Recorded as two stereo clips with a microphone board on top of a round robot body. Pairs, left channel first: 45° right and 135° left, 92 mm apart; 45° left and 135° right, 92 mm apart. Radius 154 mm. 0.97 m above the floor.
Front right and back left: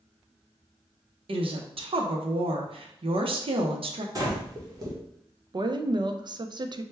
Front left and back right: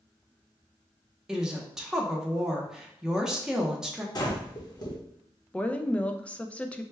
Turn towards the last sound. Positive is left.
turn(degrees=120)